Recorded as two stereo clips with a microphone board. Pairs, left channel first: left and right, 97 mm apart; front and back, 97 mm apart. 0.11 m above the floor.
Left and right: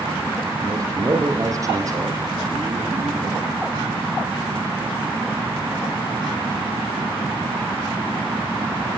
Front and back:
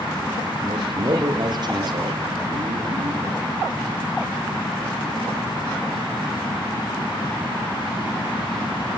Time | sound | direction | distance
0.6 | a man speaking | 140° right | 5.5 m